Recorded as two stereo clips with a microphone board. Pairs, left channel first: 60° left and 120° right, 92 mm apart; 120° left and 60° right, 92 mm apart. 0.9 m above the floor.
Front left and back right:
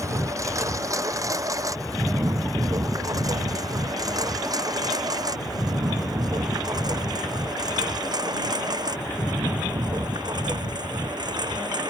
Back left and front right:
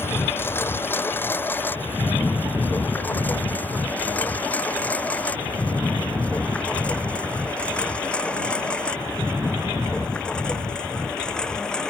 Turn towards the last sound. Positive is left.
turn(degrees=-160)